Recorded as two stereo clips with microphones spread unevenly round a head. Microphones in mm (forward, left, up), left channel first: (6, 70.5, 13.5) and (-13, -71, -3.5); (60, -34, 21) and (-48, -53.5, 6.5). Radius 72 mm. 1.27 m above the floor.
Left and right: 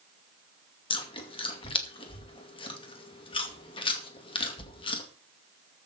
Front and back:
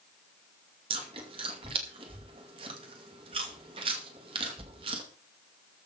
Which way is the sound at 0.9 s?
140° left.